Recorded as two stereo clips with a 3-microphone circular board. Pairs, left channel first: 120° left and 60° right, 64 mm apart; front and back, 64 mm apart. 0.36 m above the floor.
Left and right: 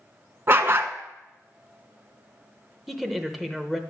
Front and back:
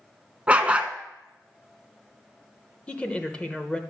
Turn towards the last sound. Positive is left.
turn(degrees=25)